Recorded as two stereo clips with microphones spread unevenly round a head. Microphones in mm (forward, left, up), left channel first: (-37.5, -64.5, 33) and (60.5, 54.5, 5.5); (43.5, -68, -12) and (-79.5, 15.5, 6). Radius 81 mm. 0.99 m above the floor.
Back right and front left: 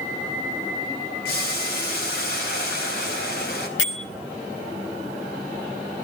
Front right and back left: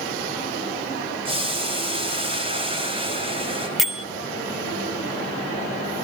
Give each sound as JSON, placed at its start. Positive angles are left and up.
{"t": 1.2, "sound": "boiling", "azimuth_deg": -160, "distance_m": 4.5}
{"t": 3.8, "sound": "a bell", "azimuth_deg": -125, "distance_m": 1.6}